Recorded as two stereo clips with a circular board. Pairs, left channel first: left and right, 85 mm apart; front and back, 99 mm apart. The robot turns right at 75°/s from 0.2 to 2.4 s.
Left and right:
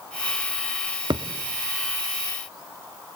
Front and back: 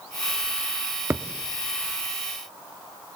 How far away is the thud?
About 0.9 m.